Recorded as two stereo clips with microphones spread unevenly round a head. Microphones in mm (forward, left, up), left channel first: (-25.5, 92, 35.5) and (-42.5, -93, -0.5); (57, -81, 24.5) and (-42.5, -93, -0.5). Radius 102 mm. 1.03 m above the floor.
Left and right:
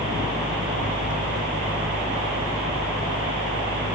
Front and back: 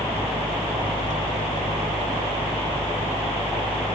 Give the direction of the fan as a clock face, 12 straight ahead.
12 o'clock.